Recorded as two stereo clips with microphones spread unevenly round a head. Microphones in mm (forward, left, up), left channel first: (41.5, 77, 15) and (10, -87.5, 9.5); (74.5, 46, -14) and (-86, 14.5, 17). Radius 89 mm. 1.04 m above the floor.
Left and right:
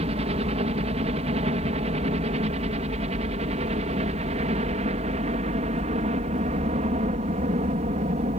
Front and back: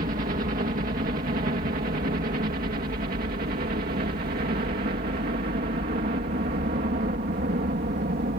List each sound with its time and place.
0.0 s a helicopter: 135° right; by 8.4 s 140° right